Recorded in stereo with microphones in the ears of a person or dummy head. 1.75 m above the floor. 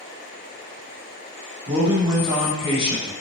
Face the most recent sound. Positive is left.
turn(degrees=-30)  # may be behind; listen again after turning